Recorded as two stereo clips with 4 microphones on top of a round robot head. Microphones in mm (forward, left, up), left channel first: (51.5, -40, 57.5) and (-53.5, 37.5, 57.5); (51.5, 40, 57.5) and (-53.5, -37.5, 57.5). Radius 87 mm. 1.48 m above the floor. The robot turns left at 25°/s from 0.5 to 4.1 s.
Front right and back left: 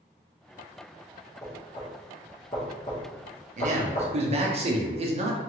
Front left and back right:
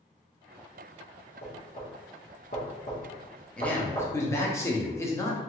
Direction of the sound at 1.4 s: 45° left.